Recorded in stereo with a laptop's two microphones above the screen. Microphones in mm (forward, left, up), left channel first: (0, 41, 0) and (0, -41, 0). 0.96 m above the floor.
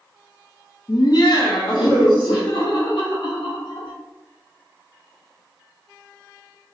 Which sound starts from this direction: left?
Laughter, at 0.9 s.